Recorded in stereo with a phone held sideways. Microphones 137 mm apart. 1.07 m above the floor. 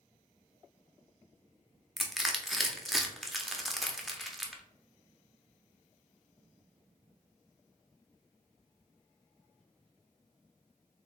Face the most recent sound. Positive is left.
turn(degrees=0)  # may be behind; listen again after turning